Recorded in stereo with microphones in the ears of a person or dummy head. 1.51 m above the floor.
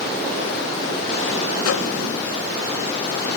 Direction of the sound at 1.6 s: 85° left.